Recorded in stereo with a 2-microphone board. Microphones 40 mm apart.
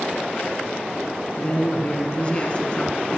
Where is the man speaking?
30° left (ahead or behind), 1.5 m.